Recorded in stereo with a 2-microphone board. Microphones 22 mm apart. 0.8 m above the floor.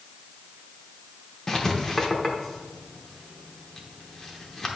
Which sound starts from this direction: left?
Writing, at 1.5 s.